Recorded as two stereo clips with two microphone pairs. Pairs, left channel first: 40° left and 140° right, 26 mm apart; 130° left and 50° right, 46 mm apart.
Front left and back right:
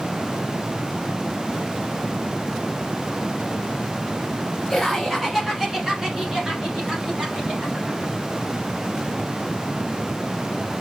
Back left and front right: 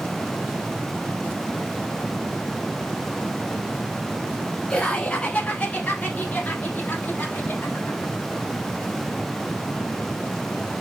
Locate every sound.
4.7 s laughter: 135° left, 1.2 m; by 8.1 s 175° left, 2.5 m